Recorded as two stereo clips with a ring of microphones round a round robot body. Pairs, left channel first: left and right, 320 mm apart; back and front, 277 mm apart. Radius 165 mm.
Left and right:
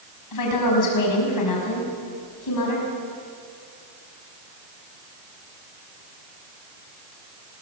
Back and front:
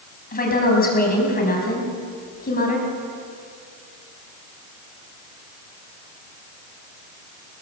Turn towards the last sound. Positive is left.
turn(degrees=120)